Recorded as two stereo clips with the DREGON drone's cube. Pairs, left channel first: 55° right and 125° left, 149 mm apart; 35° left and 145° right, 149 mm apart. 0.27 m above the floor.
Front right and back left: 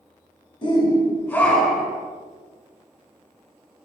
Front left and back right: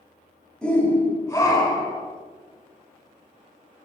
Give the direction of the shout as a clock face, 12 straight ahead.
2 o'clock.